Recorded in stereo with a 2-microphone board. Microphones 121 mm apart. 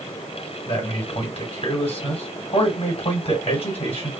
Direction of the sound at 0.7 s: 55° left (ahead or behind).